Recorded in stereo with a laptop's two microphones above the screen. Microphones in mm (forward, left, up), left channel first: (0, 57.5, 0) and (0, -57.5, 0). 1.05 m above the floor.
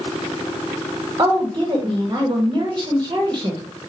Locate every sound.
1.2 s a woman speaking: 35° right (ahead or behind), 1.2 m